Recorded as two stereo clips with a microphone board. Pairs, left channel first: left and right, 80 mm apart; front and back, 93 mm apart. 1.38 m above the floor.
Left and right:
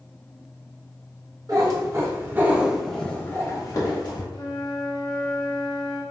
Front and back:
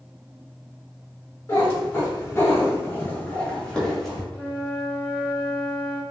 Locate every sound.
1.5 s a cat meowing: 60° right, 1.0 m; by 4.2 s 85° left, 0.9 m
4.3 s a flute: 70° left, 0.7 m